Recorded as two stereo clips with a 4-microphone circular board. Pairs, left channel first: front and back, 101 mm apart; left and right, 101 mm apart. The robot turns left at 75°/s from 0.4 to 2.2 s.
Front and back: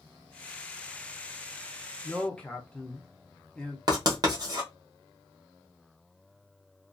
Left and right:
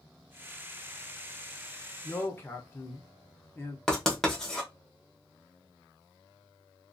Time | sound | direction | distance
2.0 | a man speaking | 80° left | 0.8 m
3.9 | writing | 170° left | 1.0 m